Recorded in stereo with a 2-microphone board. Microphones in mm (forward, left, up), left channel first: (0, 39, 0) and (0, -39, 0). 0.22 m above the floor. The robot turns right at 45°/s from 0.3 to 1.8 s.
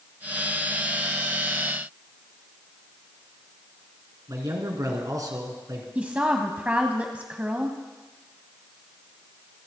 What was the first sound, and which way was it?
A man speaking, 50° right (ahead or behind).